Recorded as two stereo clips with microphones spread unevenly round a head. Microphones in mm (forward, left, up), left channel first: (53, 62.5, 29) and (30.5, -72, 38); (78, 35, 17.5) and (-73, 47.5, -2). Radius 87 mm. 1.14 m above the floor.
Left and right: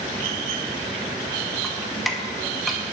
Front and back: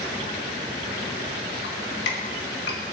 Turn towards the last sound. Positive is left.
turn(degrees=-10)